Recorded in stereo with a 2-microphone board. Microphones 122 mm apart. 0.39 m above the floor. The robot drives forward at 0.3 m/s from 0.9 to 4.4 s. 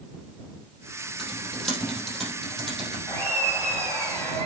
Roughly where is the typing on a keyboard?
Centre.